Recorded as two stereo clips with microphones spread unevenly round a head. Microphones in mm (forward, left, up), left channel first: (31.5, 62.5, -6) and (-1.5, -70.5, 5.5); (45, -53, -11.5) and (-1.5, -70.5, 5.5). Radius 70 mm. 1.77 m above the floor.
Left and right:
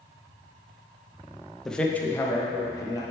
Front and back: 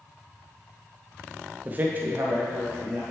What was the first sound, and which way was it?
A man speaking, 165° left.